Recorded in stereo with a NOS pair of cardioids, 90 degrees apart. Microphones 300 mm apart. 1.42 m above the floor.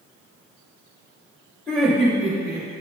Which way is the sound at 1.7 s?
5° left.